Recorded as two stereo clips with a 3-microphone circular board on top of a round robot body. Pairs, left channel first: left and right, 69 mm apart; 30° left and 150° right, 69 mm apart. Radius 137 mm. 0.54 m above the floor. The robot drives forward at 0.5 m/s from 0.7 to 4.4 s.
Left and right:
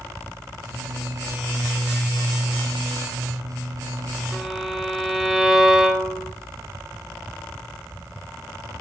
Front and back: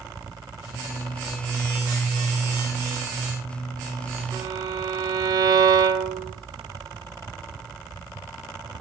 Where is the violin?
175° right, 3 m.